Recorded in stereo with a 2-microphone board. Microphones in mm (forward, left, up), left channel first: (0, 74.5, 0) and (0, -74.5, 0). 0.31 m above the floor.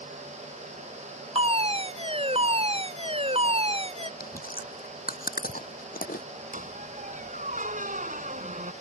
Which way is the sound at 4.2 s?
75° left (ahead or behind).